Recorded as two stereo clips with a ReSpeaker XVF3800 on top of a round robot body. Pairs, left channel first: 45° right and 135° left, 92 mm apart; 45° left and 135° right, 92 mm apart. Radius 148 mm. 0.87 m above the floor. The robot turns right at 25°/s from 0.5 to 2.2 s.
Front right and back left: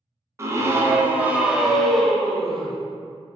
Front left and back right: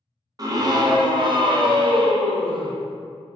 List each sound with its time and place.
0.4 s a scream: 170° right, 0.6 m; by 2.8 s 130° right, 0.6 m